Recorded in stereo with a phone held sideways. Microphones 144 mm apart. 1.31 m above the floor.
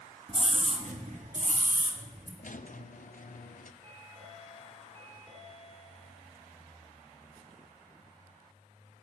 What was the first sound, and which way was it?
A scream, 40° right (ahead or behind).